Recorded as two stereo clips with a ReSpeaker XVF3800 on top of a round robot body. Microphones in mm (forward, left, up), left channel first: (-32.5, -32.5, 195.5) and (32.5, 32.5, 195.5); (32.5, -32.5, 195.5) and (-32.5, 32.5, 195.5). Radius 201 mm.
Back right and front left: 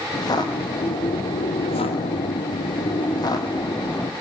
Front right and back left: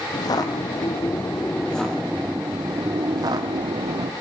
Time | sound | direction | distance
0.1 | footsteps | 90° right | 3 m